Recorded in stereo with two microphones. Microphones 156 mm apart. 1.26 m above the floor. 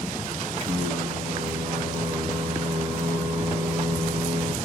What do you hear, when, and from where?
0.6 s singing: 45° right (ahead or behind), 0.9 m